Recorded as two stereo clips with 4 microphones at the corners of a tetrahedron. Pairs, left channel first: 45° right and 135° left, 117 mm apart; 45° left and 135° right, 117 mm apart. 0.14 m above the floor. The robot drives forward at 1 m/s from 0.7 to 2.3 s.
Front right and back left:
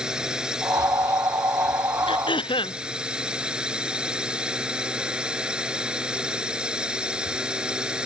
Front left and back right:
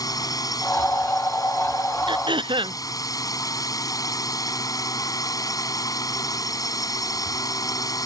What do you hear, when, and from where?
0.0 s a drone: 55° left; by 8.1 s 60° left
2.1 s throat clearing: 90° right